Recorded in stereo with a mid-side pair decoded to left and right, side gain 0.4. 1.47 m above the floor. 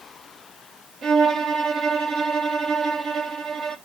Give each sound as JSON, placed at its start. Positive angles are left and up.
{"t": 1.0, "sound": "a violin", "azimuth_deg": -60, "distance_m": 1.1}